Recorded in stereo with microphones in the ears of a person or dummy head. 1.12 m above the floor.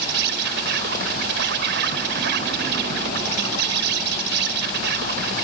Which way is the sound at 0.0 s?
70° right (ahead or behind).